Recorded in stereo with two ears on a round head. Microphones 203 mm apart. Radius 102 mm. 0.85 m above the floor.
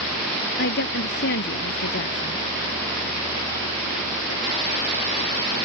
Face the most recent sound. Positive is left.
turn(degrees=50)  # may be behind; listen again after turning